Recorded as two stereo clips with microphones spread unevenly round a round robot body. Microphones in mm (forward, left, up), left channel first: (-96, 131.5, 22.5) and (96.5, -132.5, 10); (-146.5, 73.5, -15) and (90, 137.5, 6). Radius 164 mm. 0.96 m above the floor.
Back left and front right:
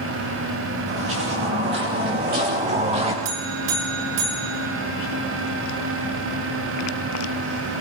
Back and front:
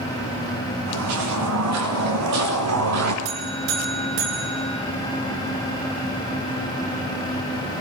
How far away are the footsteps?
About 5.5 m.